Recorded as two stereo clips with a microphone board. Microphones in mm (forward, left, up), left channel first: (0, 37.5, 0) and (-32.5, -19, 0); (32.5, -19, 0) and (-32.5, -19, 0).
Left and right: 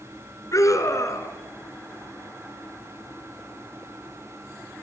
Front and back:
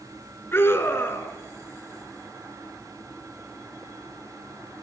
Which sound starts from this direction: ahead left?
A scream, at 0.5 s.